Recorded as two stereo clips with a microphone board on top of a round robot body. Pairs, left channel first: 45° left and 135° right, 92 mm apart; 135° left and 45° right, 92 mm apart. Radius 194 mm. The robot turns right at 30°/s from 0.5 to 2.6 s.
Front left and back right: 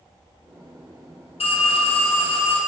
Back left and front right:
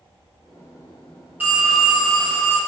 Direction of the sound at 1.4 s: 30° left.